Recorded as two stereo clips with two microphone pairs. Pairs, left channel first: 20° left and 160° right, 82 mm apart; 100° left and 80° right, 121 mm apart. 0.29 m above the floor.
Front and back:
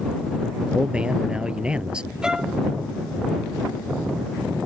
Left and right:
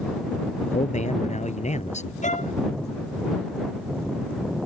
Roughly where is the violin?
Behind left.